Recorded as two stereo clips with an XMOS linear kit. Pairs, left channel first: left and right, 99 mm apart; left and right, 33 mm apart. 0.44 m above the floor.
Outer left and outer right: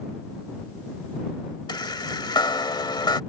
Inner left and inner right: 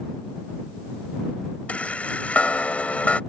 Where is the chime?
50° left (ahead or behind).